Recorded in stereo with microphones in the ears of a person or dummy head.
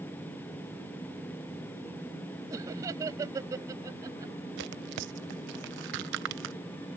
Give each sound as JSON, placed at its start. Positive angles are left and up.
{"t": 2.5, "sound": "laughter", "side_deg": -20}
{"t": 4.6, "sound": "tearing paper", "side_deg": -60}